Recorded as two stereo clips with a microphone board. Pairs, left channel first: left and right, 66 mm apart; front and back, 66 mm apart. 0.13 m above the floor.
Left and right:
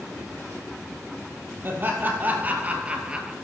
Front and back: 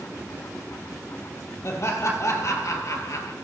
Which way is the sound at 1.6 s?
40° right.